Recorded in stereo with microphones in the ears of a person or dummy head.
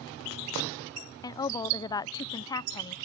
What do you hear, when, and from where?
1.2 s a woman speaking: 20° left (ahead or behind)